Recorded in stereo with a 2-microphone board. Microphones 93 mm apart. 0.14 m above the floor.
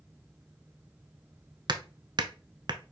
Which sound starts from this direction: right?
Hammering, at 1.7 s.